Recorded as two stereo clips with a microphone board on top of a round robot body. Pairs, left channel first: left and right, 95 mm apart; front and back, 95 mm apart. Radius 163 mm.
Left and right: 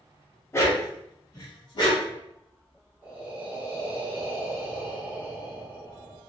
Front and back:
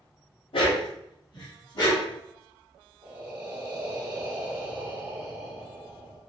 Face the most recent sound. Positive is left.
turn(degrees=-140)